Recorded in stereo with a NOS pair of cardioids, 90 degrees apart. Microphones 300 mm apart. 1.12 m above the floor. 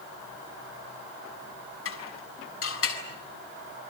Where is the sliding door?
I don't hear a sliding door.